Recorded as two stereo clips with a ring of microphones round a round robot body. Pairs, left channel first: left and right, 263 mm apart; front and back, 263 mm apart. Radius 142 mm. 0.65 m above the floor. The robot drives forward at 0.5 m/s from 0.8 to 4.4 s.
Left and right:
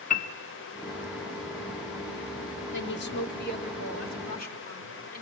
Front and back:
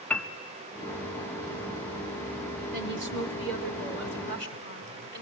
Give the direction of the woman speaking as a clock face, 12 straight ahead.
8 o'clock.